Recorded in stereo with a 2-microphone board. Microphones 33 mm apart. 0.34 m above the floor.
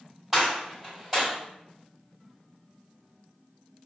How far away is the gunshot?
About 2.0 m.